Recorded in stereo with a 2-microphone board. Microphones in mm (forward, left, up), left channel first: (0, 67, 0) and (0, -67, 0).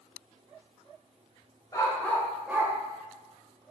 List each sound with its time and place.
1.7 s a dog barking: 30° left (ahead or behind), 0.8 m; by 2.7 s 25° right (ahead or behind), 0.7 m